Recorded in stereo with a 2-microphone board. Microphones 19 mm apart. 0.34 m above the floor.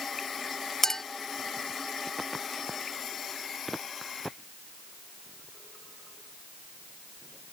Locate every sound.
0.8 s a clink: 25° left (ahead or behind)